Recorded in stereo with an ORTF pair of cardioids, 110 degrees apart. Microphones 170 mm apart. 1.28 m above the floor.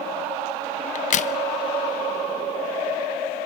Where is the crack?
50° left, 0.8 m.